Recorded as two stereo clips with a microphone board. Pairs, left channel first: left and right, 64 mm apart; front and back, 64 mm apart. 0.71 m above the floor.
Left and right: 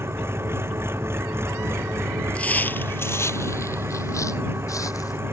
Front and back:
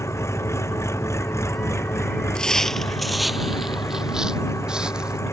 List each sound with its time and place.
0.0 s an engine running: 40° right
2.4 s footsteps: 60° left; by 5.2 s 105° left